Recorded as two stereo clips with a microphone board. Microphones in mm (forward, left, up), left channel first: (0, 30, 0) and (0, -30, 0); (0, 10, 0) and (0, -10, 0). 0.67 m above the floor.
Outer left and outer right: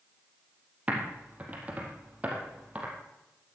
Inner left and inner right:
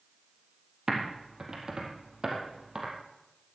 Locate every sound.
0.9 s typing on a keyboard: 25° right (ahead or behind), 4 m